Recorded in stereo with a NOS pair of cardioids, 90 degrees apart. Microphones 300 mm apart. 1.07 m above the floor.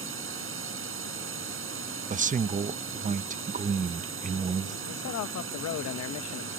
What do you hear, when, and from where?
0.0 s a drone: 45° right
2.1 s a man speaking: 25° right
4.9 s a man speaking: 65° left